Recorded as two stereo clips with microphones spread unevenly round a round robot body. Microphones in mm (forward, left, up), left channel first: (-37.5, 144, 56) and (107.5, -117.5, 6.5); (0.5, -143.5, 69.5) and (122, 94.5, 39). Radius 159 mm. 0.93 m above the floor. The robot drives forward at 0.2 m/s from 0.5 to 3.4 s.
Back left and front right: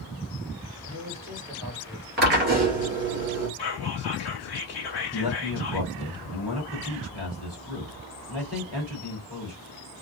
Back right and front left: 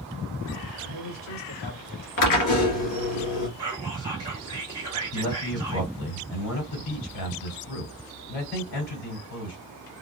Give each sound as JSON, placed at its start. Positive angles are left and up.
{"t": 0.8, "sound": "a man speaking", "azimuth_deg": -135, "distance_m": 1.7}
{"t": 2.2, "sound": "a drill", "azimuth_deg": -115, "distance_m": 1.9}
{"t": 3.6, "sound": "whispering", "azimuth_deg": 140, "distance_m": 1.0}
{"t": 5.1, "sound": "a man speaking", "azimuth_deg": -150, "distance_m": 2.5}